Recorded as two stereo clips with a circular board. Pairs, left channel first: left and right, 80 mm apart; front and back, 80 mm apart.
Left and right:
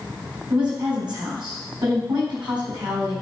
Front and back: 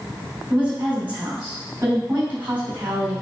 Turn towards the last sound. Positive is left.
turn(degrees=-110)